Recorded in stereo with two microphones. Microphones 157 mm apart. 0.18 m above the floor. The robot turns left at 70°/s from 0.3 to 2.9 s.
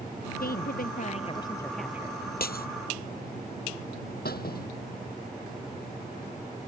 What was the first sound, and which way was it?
A woman speaking, 100° left.